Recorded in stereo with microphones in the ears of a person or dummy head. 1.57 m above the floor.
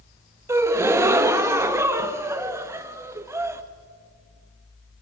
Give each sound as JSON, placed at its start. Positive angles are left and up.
{"t": 0.5, "sound": "a gasp", "side_deg": -15, "distance_m": 1.0}